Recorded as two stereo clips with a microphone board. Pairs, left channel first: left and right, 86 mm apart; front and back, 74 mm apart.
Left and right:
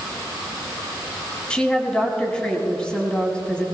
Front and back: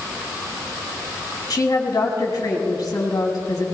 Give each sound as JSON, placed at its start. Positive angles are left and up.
{"t": 1.5, "sound": "a woman speaking", "azimuth_deg": 10, "distance_m": 3.0}